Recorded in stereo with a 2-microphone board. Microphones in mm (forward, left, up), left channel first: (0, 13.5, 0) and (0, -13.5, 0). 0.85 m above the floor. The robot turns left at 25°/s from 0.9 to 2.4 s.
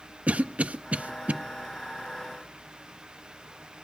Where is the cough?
60° right (ahead or behind), 0.7 m.